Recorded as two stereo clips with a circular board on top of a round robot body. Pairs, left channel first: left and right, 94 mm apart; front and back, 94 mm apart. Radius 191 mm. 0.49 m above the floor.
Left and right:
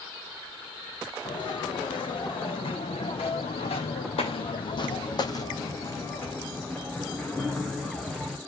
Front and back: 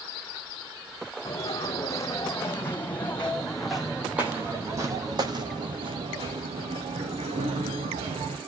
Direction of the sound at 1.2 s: 55° left.